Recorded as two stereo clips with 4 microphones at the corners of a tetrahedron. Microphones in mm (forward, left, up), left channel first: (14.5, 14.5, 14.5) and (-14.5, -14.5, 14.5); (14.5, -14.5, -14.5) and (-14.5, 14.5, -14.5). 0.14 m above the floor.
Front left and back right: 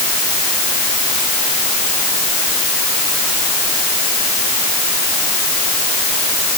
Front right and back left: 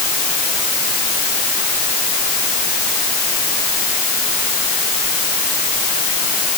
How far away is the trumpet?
No trumpet in this recording.